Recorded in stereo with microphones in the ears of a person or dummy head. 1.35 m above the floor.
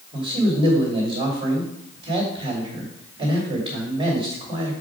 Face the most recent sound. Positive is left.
turn(degrees=-25)  # may be behind; listen again after turning